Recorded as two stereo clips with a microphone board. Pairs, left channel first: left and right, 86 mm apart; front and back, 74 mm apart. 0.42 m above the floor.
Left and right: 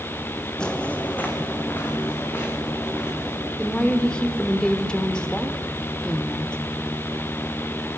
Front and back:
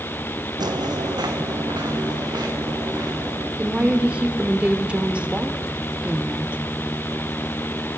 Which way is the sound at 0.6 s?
170° left.